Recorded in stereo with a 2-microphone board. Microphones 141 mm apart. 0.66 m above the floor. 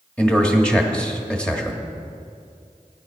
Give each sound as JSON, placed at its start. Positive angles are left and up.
{"t": 0.2, "sound": "a man speaking", "side_deg": 10, "distance_m": 1.3}